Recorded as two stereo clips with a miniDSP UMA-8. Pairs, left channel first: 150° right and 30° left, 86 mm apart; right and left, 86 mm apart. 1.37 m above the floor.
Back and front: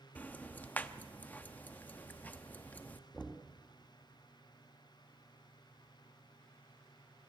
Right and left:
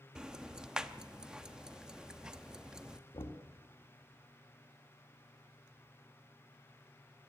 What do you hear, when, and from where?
0.1 s ticking: 165° left, 0.8 m
3.1 s knocking: 65° right, 2 m